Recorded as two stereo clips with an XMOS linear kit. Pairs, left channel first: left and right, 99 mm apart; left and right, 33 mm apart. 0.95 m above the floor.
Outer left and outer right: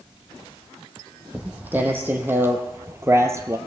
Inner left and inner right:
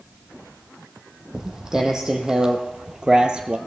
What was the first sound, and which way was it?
Footsteps, 15° right (ahead or behind).